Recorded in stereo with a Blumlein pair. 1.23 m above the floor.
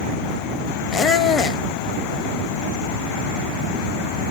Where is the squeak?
20° left, 0.7 m.